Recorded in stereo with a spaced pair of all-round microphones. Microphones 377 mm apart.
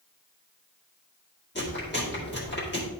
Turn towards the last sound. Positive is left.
turn(degrees=30)  # may be behind; listen again after turning